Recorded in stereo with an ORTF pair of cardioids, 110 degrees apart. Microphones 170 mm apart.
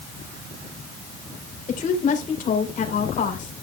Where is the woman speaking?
45° left, 3.5 m.